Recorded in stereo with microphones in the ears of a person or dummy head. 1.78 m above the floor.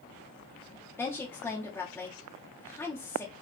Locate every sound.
1.0 s a woman speaking: 10° left (ahead or behind), 0.8 m